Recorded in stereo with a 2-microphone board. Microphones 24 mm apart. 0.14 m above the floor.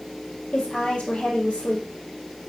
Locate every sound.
0.5 s a woman speaking: 75° left (ahead or behind), 3.5 m